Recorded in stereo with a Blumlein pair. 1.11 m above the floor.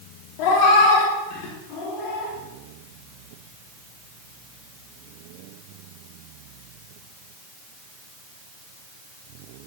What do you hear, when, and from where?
0.4 s a cat meowing: 45° left, 1.2 m; by 2.3 s 40° left, 2.5 m